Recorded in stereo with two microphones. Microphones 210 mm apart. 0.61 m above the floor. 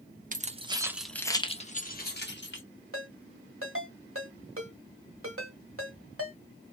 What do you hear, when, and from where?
0.3 s keys jangling: 40° right (ahead or behind), 0.6 m; by 2.6 s 60° left (ahead or behind), 1.0 m
2.9 s a ringtone: 80° right, 1.4 m